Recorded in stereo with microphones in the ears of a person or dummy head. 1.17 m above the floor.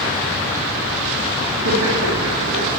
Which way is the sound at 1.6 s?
70° right (ahead or behind).